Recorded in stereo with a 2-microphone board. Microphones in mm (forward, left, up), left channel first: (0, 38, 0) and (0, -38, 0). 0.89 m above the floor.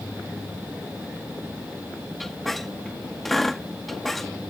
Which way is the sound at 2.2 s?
5° left (ahead or behind).